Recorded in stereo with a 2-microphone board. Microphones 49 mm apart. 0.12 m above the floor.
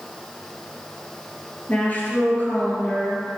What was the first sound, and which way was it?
A woman speaking, 35° left (ahead or behind).